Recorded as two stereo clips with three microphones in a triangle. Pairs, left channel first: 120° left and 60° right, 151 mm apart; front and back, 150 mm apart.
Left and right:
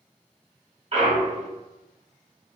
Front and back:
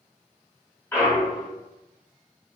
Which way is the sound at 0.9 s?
70° right.